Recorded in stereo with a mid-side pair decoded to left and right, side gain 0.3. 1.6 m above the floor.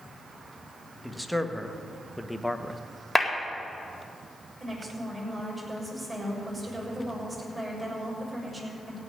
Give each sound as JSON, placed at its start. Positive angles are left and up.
{"t": 1.0, "sound": "a man speaking", "azimuth_deg": 0, "distance_m": 1.9}
{"t": 3.1, "sound": "a clap", "azimuth_deg": 15, "distance_m": 4.0}
{"t": 4.6, "sound": "a woman speaking", "azimuth_deg": -25, "distance_m": 7.0}